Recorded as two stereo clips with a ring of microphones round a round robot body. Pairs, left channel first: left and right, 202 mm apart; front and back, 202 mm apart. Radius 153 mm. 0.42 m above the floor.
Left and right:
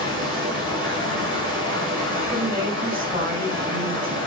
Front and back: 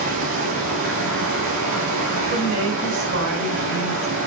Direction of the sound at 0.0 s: 150° right.